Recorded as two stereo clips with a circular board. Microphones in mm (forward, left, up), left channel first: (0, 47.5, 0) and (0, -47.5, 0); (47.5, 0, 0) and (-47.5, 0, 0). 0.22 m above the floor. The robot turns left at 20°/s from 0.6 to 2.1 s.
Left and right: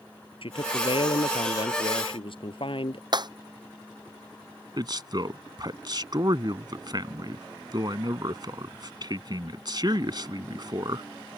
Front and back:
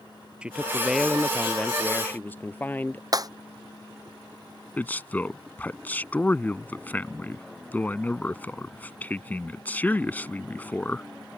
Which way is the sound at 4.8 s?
70° right.